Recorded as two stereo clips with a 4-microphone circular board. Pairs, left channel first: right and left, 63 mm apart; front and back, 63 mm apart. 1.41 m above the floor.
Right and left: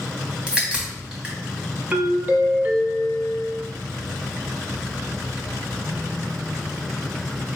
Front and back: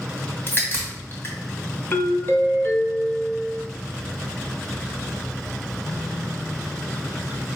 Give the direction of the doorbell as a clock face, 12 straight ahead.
11 o'clock.